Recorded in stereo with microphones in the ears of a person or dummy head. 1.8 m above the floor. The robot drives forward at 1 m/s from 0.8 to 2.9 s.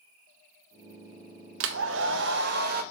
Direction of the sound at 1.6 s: 75° right (ahead or behind).